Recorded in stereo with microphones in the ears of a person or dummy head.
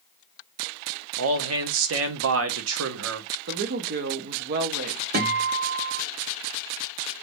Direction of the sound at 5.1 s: 50° right (ahead or behind).